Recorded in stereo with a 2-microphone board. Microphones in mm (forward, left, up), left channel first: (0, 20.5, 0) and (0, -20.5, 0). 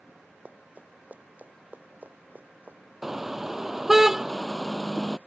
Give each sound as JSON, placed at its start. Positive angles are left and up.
{"t": 0.5, "sound": "running footsteps", "side_deg": -40}
{"t": 3.0, "sound": "a car horn", "side_deg": -5}